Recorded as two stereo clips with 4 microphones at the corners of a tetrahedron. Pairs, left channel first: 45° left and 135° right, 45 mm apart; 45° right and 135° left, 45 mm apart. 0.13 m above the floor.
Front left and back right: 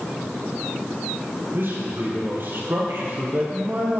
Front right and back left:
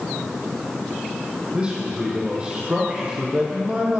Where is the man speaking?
165° right, 4 m.